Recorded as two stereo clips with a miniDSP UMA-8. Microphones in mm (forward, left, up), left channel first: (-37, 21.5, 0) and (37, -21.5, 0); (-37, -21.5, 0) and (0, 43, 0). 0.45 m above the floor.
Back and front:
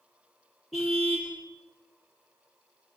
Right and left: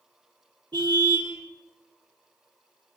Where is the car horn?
60° left, 7 m.